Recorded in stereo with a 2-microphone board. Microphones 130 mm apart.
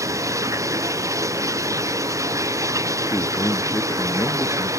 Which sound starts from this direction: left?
A man speaking, at 3.1 s.